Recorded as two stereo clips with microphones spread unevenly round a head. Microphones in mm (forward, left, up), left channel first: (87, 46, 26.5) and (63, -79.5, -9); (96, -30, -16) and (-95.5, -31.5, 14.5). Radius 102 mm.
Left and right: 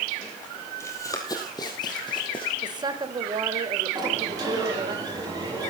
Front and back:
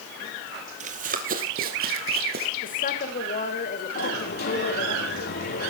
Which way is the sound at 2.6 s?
45° right.